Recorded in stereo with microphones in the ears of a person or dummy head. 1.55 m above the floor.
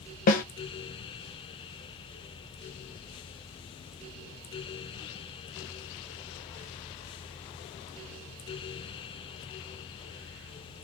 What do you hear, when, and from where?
0.3 s a snare drum: 45° left (ahead or behind), 1.1 m